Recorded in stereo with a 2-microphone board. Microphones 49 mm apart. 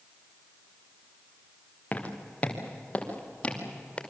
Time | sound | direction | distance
1.9 | footsteps | 25° left (ahead or behind) | 3.5 m